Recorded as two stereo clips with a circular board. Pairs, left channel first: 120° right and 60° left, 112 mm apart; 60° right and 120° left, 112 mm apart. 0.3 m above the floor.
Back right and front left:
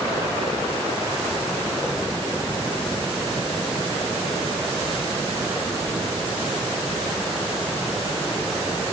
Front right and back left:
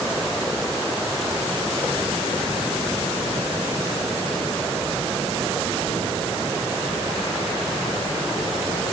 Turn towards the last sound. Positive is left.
No sound to turn to.